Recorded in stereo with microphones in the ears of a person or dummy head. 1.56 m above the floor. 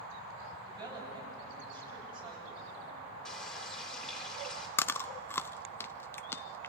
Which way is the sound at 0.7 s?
25° right (ahead or behind).